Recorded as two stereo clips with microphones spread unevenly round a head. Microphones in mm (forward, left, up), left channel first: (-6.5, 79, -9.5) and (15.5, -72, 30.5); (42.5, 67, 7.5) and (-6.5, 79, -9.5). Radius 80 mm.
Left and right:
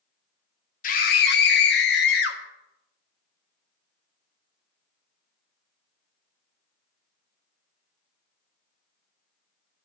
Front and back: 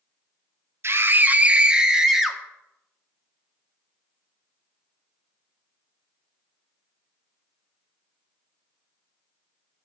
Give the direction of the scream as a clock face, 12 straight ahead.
8 o'clock.